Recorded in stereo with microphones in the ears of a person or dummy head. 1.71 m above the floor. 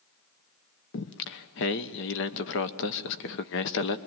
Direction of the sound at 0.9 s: 60° left (ahead or behind).